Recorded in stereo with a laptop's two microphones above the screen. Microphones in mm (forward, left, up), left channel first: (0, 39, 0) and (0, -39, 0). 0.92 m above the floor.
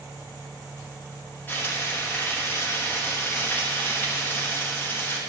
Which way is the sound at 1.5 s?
25° left (ahead or behind).